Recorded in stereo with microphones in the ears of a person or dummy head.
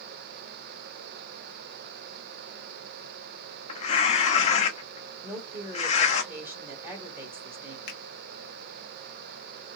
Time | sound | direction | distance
3.7 | tearing paper | 40° left (ahead or behind) | 0.8 m
5.2 | a woman speaking | 10° right (ahead or behind) | 1.2 m
7.9 | a finger snap | 55° left (ahead or behind) | 1.2 m